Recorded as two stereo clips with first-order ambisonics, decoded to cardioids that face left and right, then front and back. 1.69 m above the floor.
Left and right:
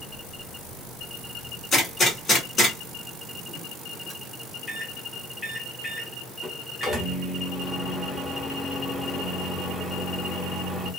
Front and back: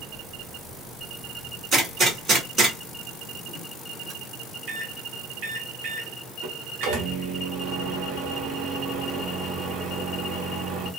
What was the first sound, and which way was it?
A gunshot, 155° left.